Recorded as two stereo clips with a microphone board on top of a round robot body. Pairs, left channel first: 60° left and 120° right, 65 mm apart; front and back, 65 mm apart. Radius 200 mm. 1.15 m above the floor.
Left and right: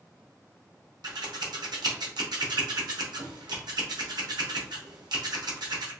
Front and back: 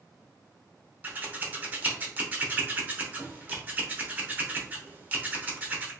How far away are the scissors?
About 0.7 m.